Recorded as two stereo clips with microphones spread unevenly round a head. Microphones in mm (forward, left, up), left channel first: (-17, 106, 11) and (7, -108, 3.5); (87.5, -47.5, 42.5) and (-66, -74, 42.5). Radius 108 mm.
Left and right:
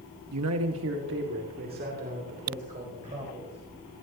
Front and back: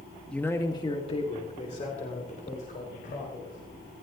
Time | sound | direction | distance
0.3 | a man speaking | 75° right | 1.1 m